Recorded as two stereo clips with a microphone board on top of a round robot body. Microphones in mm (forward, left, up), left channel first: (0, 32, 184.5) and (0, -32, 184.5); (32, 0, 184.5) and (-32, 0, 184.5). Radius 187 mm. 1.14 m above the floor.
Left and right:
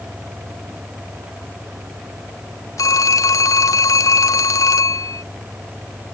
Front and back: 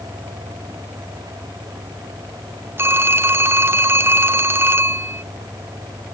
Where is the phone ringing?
125° left.